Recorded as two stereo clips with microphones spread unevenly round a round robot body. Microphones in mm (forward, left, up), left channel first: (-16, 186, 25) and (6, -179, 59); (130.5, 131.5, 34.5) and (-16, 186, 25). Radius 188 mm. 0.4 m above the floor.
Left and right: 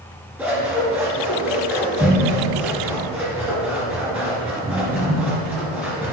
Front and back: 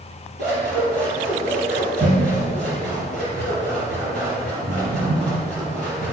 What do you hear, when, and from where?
0.4 s scissors: 170° right, 3 m